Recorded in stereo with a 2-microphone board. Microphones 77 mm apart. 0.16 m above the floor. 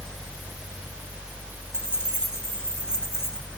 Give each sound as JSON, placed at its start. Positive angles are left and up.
{"t": 1.7, "sound": "keys jangling", "side_deg": 35, "distance_m": 7.5}